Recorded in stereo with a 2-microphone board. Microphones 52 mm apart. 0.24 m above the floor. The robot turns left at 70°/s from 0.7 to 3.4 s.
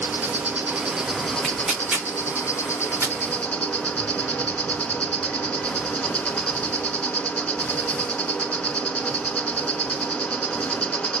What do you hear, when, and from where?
0.0 s an insect: 150° right, 0.8 m; by 11.2 s 20° left, 0.8 m
1.4 s tearing paper: 5° left (ahead or behind), 2 m; by 3.1 s 55° right (ahead or behind), 2 m